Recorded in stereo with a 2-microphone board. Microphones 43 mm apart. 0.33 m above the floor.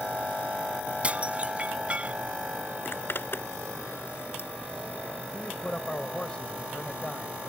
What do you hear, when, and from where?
1.0 s dishes clattering: 30° right (ahead or behind)
2.9 s a zipper: 55° left (ahead or behind)
5.3 s a man speaking: 25° left (ahead or behind)